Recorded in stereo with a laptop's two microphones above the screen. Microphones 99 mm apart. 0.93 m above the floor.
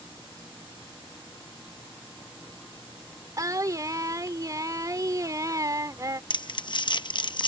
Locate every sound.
3.4 s singing: 35° right (ahead or behind)
6.3 s crumpling: 50° left (ahead or behind)